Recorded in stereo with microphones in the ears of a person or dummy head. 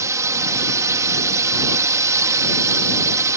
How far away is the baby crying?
No baby crying in this recording.